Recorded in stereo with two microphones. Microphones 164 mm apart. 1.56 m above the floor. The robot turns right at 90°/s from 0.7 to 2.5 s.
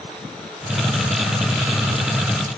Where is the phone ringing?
I don't hear a phone ringing.